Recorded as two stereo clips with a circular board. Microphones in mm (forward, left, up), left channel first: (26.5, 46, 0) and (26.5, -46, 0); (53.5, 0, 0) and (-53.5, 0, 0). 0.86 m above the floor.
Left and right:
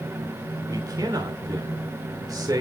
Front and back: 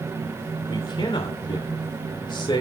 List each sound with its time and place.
0.7 s a man speaking: 40° right, 3 m